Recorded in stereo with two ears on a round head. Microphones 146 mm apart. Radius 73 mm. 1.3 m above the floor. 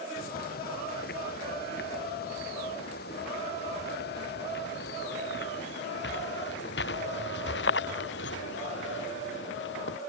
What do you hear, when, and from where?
0.2 s footsteps: 60° left (ahead or behind); by 10.0 s 80° left